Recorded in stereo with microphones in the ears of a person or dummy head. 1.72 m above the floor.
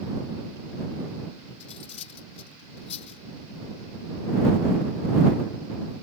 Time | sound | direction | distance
1.6 | cutlery clinking | 30° left (ahead or behind) | ?